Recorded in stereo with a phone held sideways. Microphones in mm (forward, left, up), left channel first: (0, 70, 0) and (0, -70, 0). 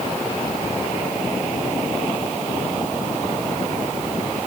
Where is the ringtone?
I don't hear a ringtone.